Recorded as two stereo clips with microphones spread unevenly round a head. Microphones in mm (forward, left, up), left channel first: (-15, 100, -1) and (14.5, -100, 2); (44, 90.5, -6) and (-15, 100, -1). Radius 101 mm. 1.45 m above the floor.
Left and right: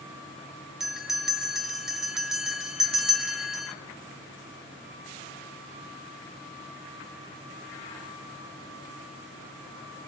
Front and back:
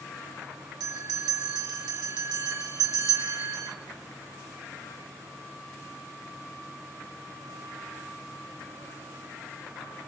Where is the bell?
170° right, 3.5 m.